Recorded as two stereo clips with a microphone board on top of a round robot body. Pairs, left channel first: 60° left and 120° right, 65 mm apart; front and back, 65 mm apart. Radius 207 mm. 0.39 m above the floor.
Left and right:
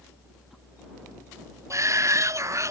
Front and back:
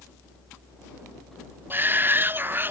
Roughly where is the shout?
Behind right.